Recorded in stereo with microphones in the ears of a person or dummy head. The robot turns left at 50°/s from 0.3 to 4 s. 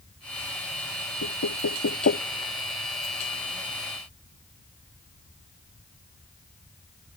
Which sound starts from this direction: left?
Knocking, at 1.2 s.